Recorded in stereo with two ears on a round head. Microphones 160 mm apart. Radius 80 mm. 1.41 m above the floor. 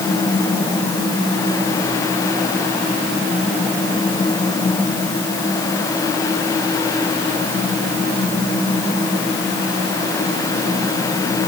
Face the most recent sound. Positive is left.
No sound to turn to.